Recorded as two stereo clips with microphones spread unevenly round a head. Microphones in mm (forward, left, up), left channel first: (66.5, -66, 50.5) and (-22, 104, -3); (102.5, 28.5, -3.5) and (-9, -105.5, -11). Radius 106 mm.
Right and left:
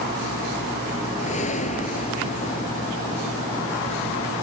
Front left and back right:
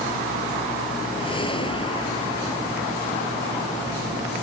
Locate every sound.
1.2 s a whoosh: 10° right